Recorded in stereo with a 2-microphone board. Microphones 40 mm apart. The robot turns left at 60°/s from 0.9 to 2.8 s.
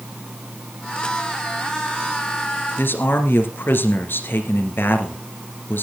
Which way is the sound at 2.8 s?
60° left (ahead or behind).